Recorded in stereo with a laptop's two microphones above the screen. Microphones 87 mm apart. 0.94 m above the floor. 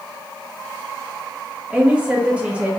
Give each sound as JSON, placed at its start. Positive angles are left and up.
{"t": 1.7, "sound": "a woman speaking", "side_deg": -15, "distance_m": 1.3}